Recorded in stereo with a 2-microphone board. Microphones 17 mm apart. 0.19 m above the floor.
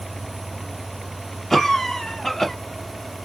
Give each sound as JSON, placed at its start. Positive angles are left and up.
{"t": 1.5, "sound": "a cough", "side_deg": 20, "distance_m": 1.1}